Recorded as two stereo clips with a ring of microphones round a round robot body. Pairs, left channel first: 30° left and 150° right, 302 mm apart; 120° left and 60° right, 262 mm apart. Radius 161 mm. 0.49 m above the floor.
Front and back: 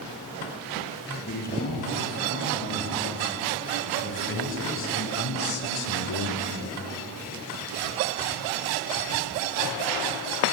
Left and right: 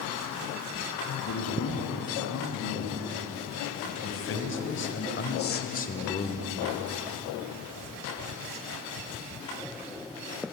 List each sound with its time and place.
1.3 s a man speaking: 90° left, 7.5 m; by 6.6 s 45° left, 2 m